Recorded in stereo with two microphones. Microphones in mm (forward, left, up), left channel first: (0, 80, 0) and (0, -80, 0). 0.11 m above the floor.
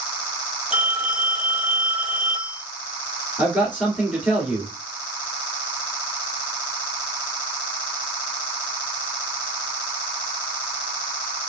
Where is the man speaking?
10° right (ahead or behind), 2 m.